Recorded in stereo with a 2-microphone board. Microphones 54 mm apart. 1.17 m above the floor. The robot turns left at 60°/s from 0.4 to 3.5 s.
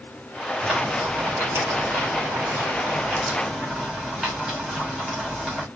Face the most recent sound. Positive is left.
turn(degrees=-175)